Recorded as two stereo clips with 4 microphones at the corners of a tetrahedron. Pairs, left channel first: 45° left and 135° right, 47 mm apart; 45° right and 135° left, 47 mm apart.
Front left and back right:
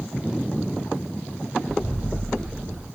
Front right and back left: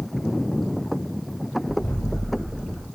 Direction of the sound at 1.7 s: 55° right.